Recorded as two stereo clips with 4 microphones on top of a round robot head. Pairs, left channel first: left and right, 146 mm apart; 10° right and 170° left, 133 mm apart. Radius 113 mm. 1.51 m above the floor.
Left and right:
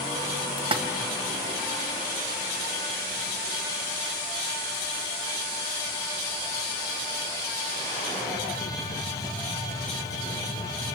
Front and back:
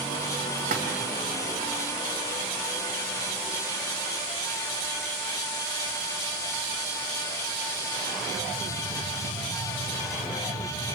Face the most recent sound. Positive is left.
turn(degrees=-145)